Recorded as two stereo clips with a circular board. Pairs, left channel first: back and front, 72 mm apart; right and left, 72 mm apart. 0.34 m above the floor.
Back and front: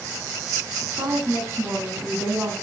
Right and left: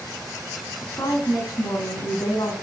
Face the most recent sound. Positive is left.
turn(degrees=-70)